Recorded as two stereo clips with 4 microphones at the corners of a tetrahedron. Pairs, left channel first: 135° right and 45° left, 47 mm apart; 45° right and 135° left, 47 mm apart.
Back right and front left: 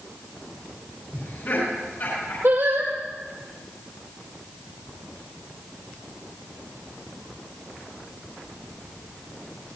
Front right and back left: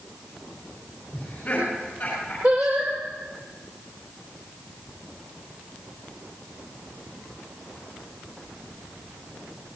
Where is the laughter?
105° right, 6.5 m; by 2.3 s 110° right, 7 m.